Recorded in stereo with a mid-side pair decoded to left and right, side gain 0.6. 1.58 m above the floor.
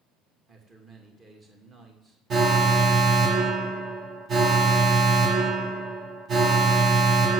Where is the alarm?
40° right, 1.4 m.